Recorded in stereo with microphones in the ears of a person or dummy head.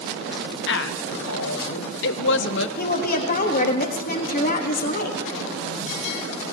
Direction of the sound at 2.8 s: 45° left (ahead or behind).